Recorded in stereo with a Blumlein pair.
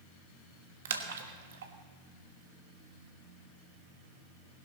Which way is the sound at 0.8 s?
60° right.